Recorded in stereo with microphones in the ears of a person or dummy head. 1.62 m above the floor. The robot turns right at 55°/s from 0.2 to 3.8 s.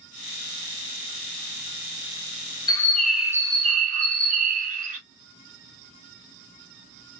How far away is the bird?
About 0.5 m.